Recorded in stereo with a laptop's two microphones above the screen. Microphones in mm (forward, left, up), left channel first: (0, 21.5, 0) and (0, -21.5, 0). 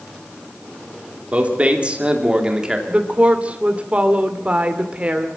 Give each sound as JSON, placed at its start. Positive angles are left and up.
{"t": 1.3, "sound": "a man speaking", "side_deg": -35, "distance_m": 3.0}
{"t": 2.9, "sound": "a woman speaking", "side_deg": -30, "distance_m": 2.5}